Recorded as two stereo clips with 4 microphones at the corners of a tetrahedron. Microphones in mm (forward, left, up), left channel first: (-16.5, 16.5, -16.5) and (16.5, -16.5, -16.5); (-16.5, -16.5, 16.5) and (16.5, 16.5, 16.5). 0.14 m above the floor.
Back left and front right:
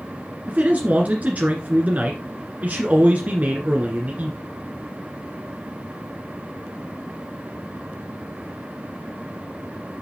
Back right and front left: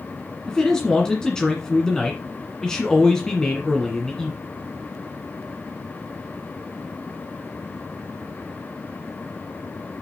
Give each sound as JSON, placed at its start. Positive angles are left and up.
{"t": 0.5, "sound": "a man speaking", "azimuth_deg": -65, "distance_m": 1.5}